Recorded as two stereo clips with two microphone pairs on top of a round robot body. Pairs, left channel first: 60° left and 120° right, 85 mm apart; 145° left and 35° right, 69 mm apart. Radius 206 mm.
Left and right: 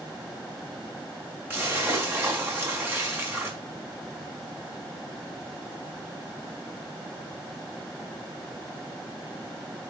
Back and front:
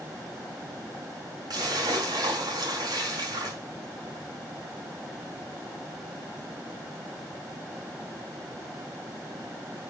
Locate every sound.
1.5 s a splash: 60° right, 3.5 m